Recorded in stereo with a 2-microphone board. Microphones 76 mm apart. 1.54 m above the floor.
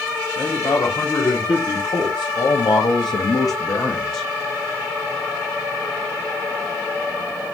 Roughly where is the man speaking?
Left.